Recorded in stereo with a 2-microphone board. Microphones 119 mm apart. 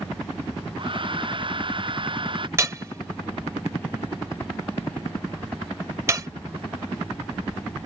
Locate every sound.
0.8 s a hair dryer: 45° right (ahead or behind)
2.6 s hammering: 25° right (ahead or behind)